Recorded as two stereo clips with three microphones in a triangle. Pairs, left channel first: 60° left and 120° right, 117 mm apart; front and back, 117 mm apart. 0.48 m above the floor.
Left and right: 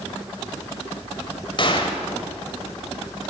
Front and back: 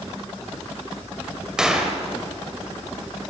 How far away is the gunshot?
About 2.5 m.